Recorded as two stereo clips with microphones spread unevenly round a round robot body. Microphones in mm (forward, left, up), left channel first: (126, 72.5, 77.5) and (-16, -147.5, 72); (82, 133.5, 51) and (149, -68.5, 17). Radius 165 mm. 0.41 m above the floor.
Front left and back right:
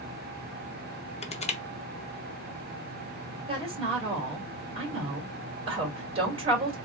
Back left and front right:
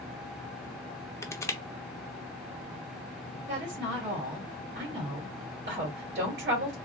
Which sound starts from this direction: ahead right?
A woman speaking, at 3.5 s.